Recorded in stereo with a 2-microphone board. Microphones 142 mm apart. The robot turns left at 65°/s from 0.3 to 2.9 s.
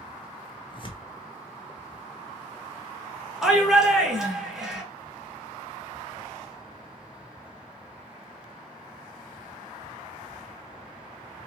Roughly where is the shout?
Centre.